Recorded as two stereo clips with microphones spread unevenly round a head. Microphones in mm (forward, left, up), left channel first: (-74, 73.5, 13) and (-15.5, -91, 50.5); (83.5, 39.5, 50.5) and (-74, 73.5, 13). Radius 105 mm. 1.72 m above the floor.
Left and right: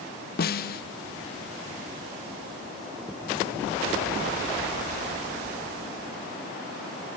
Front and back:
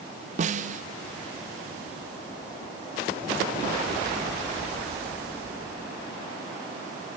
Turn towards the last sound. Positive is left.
turn(degrees=125)